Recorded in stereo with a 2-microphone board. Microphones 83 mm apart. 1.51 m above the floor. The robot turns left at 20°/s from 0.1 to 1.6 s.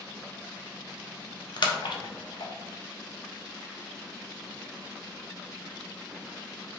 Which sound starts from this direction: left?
A splash, at 1.6 s.